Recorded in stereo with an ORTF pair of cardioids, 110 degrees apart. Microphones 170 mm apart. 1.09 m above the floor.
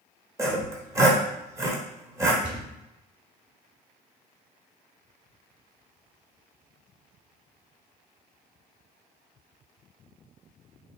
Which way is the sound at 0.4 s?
20° right.